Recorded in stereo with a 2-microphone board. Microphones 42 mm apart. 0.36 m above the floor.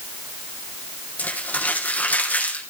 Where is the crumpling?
40° left (ahead or behind), 4 m.